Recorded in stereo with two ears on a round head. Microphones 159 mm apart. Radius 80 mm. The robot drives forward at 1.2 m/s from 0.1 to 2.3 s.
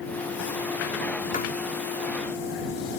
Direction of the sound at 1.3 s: 45° left (ahead or behind).